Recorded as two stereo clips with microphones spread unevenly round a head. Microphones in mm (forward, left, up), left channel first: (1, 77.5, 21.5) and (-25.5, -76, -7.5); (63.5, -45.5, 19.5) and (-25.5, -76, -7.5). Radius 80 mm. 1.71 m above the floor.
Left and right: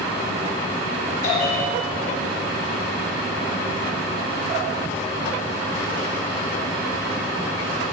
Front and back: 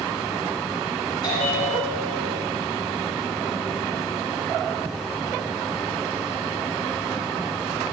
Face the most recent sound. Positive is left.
turn(degrees=50)